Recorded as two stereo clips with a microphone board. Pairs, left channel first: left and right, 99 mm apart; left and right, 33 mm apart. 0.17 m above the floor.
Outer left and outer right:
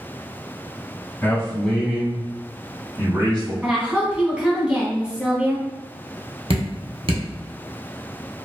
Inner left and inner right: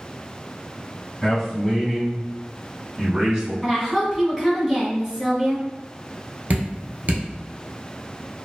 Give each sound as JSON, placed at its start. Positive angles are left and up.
{"t": 1.2, "sound": "a man speaking", "side_deg": 20, "distance_m": 1.2}
{"t": 3.6, "sound": "a woman speaking", "side_deg": -10, "distance_m": 1.0}
{"t": 6.5, "sound": "dripping", "side_deg": -70, "distance_m": 1.0}